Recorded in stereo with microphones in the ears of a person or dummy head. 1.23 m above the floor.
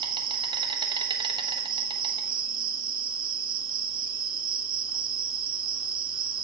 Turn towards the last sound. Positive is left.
turn(degrees=-30)  # may be behind; listen again after turning